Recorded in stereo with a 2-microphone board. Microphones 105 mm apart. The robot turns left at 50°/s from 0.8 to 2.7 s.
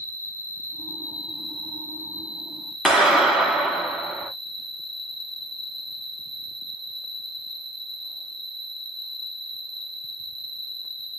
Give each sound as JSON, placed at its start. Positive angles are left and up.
{"t": 0.0, "sound": "an insect", "azimuth_deg": -145, "distance_m": 1.0}
{"t": 2.9, "sound": "a clap", "side_deg": -5, "distance_m": 1.5}